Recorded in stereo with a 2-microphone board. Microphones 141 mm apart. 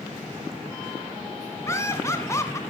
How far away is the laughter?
About 1.4 m.